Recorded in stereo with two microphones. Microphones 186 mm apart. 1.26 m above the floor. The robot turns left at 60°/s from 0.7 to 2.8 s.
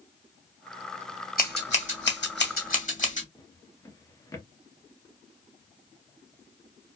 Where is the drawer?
20° left (ahead or behind), 0.8 m.